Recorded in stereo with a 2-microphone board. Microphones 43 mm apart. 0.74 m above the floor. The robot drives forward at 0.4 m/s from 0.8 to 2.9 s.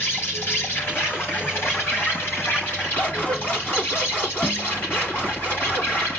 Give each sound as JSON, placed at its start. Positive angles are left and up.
{"t": 0.0, "sound": "an insect", "side_deg": 65, "distance_m": 6.0}
{"t": 3.0, "sound": "scissors", "side_deg": 45, "distance_m": 5.5}